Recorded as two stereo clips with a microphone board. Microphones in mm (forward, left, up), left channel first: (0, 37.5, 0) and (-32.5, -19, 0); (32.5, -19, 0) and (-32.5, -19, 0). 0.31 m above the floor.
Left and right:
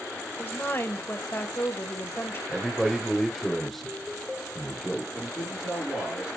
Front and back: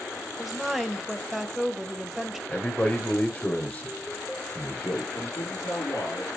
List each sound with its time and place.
0.4 s a woman speaking: 95° left, 1.1 m
2.5 s a man speaking: 25° right, 1.0 m
5.1 s a man speaking: 25° right, 4.5 m